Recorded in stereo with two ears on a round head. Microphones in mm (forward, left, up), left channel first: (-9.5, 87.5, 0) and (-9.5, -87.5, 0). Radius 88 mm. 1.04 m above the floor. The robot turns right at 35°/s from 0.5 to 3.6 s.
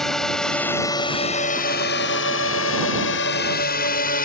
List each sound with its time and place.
0.0 s a drone: centre (ahead or behind); by 4.3 s 50° left (ahead or behind)